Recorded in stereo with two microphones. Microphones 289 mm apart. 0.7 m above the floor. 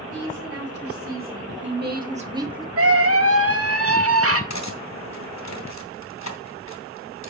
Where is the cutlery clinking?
70° left (ahead or behind), 1.7 m.